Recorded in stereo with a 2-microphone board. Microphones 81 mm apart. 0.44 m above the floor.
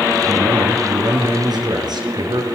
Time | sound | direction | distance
0.2 | a man speaking | 60° right (ahead or behind) | 6.5 m